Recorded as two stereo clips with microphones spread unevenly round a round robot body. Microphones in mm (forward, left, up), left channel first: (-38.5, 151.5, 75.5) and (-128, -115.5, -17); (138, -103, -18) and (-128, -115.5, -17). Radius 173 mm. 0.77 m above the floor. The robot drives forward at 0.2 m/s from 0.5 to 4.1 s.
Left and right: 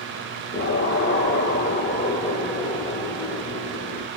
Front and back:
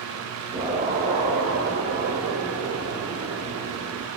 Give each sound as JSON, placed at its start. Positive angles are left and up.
{"t": 0.5, "sound": "an explosion", "azimuth_deg": 110, "distance_m": 0.7}